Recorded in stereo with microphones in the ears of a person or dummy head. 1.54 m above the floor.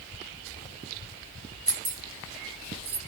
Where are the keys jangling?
20° right (ahead or behind), 0.6 m; by 3.0 s 65° right (ahead or behind), 1.2 m.